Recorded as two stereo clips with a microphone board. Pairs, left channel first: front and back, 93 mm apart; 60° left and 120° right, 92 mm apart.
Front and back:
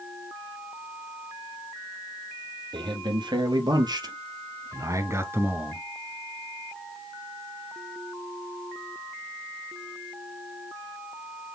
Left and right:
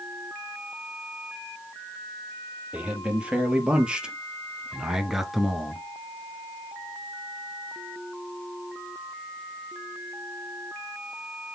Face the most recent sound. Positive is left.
turn(degrees=140)